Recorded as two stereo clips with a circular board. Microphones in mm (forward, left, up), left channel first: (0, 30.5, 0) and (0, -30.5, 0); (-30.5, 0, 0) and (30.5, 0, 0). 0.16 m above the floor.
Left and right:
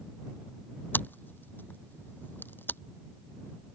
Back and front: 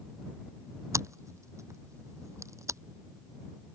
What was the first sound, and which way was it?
Scissors, 35° left.